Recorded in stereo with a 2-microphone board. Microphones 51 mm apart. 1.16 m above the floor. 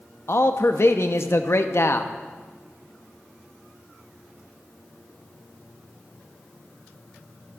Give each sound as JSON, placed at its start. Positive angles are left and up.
{"t": 0.3, "sound": "a man speaking", "side_deg": 60, "distance_m": 0.6}